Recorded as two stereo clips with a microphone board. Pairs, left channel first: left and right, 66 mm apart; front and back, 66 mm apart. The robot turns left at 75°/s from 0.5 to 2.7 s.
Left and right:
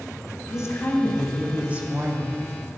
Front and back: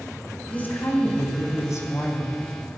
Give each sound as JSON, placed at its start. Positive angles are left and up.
{"t": 0.5, "sound": "a woman speaking", "azimuth_deg": 65, "distance_m": 2.5}